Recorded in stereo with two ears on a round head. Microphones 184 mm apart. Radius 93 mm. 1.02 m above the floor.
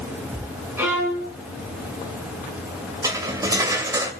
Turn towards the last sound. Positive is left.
turn(degrees=-15)  # may be behind; listen again after turning